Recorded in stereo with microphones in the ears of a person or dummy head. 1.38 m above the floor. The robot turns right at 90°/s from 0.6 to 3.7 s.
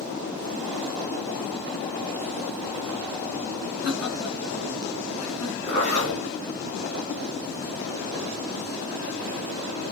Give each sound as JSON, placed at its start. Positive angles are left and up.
{"t": 3.8, "sound": "laughter", "side_deg": 25, "distance_m": 1.2}
{"t": 5.7, "sound": "a zipper", "side_deg": 5, "distance_m": 1.6}